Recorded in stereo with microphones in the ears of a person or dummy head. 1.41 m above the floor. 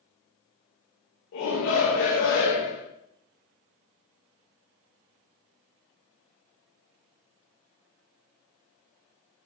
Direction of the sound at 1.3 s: 70° left (ahead or behind).